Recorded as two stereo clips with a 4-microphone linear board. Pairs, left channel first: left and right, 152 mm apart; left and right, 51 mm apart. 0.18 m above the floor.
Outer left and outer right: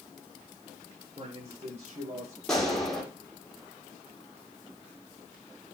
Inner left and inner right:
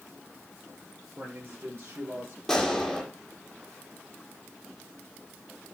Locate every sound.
1.2 s a man speaking: 40° right (ahead or behind), 4 m; by 2.4 s 45° right (ahead or behind), 5 m
2.5 s a gunshot: 5° left (ahead or behind), 5.5 m